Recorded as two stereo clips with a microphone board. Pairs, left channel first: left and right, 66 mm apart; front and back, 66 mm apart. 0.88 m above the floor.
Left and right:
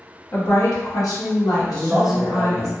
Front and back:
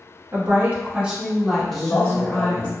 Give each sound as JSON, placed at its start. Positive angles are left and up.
{"t": 0.3, "sound": "a woman speaking", "azimuth_deg": 135, "distance_m": 0.9}
{"t": 1.7, "sound": "a man speaking", "azimuth_deg": -5, "distance_m": 0.6}